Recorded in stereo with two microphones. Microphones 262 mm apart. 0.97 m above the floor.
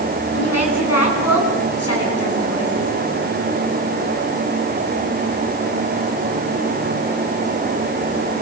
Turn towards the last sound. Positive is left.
turn(degrees=60)  # may be behind; listen again after turning